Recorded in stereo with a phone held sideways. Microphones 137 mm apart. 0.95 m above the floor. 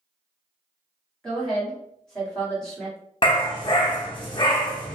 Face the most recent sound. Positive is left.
turn(degrees=35)  # may be behind; listen again after turning